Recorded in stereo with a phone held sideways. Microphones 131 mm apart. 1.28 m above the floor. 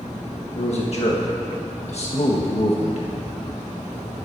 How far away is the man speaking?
About 1.4 m.